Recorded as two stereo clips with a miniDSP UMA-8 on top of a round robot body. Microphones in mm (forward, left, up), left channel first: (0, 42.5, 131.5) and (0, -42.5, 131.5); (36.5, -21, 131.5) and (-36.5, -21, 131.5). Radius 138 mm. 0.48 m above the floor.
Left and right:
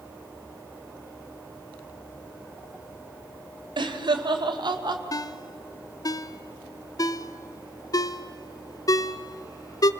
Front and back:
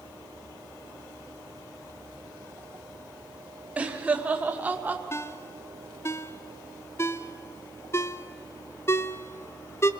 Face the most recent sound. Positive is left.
turn(degrees=50)